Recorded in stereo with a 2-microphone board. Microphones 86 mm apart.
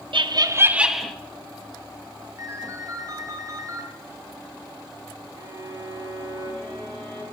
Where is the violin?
75° right (ahead or behind), 2.5 m.